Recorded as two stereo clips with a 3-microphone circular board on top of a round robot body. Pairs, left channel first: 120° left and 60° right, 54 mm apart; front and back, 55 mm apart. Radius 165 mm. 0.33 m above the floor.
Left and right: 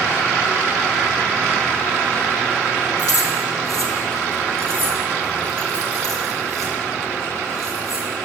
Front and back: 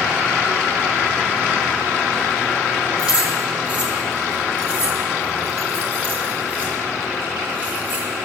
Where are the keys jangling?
110° left, 6 m; by 8.1 s 125° left, 11.5 m.